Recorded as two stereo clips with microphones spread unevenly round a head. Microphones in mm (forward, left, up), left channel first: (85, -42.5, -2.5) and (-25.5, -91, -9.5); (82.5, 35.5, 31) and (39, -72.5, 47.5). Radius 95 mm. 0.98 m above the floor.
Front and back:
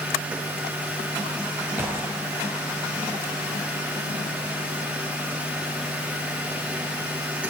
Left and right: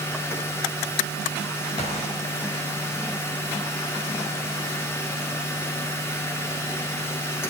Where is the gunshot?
120° left, 1.8 m.